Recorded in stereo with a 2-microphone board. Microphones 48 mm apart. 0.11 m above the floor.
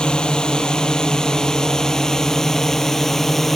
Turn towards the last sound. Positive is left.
turn(degrees=5)  # may be behind; listen again after turning